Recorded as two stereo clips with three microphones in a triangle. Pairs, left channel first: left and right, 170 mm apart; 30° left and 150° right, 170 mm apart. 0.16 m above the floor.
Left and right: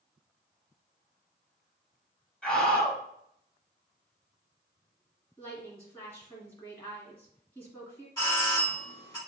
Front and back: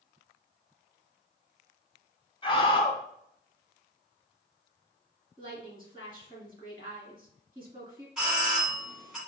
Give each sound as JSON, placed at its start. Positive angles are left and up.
{"t": 2.4, "sound": "a scream", "azimuth_deg": 10, "distance_m": 1.1}
{"t": 5.4, "sound": "a woman speaking", "azimuth_deg": 165, "distance_m": 2.0}
{"t": 8.2, "sound": "a doorbell", "azimuth_deg": 125, "distance_m": 1.5}